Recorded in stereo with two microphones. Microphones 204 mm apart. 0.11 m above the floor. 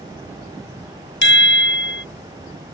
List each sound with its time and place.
1.2 s a chime: 60° left (ahead or behind)